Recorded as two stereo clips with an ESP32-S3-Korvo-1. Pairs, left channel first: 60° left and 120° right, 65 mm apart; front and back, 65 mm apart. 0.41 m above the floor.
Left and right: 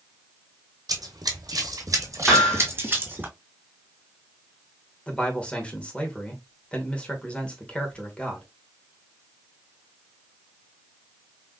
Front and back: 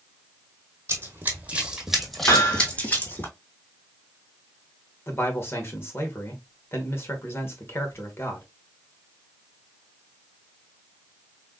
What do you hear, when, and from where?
0.9 s running footsteps: 130° right, 1.1 m; by 3.3 s 55° right, 1.4 m
2.3 s hammering: 30° right, 1.4 m
5.1 s a man speaking: straight ahead, 1.1 m